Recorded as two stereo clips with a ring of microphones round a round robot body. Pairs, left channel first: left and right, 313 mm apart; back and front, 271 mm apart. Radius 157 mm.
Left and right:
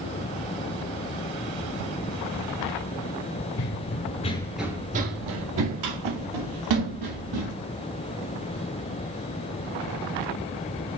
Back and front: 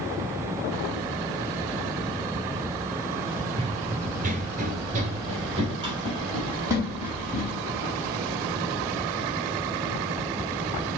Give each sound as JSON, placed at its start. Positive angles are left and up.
{"t": 3.6, "sound": "running footsteps", "azimuth_deg": 65, "distance_m": 0.8}